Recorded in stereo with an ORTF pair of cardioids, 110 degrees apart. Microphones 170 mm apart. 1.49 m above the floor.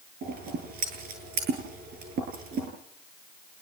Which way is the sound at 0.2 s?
60° right.